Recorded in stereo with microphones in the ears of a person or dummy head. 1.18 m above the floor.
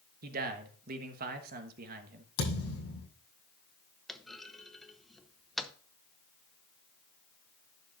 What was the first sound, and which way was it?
A man speaking, 50° right (ahead or behind).